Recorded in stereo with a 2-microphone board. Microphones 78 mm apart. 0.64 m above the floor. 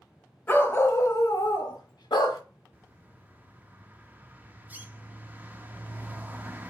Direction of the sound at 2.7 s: 20° right (ahead or behind).